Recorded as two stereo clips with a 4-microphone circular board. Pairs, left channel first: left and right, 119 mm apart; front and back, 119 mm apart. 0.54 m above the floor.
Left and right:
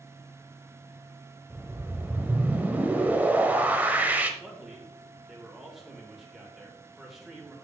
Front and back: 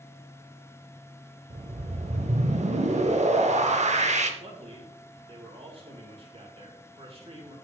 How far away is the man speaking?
About 2.5 m.